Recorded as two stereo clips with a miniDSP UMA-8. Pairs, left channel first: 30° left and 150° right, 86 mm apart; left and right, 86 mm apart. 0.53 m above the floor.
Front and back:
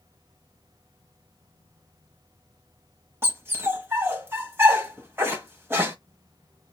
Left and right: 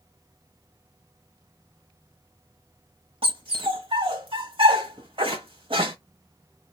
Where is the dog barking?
85° right, 1.3 m.